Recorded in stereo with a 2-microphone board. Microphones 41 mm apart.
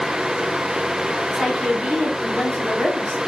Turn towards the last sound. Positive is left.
turn(degrees=-20)  # may be behind; listen again after turning